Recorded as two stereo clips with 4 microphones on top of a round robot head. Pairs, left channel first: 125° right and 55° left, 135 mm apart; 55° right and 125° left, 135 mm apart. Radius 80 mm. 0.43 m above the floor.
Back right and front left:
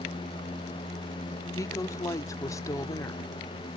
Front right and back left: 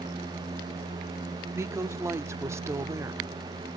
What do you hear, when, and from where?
1.5 s a woman speaking: 175° right, 0.9 m